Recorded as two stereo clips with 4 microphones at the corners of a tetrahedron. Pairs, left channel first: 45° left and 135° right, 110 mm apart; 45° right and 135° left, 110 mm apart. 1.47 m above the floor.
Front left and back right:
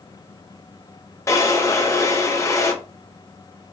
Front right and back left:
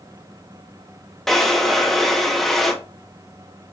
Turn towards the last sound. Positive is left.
turn(degrees=40)